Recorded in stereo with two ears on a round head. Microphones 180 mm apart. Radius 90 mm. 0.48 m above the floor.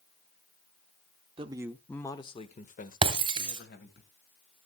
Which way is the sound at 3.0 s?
25° right (ahead or behind).